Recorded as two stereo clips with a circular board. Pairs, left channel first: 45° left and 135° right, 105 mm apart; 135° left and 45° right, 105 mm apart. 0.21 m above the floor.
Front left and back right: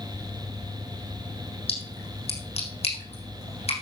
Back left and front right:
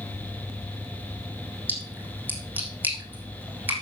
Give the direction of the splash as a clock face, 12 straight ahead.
11 o'clock.